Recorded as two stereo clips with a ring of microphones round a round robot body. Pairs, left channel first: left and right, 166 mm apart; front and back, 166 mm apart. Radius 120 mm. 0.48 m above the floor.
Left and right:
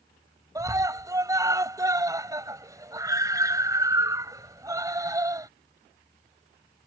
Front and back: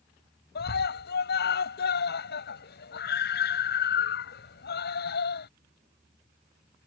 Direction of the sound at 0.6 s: 20° right.